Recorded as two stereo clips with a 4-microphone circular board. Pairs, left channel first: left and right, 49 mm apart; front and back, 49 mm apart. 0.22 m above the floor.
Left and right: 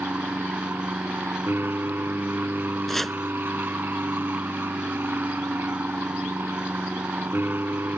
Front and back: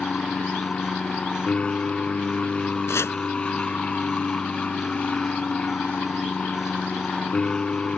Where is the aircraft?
65° right.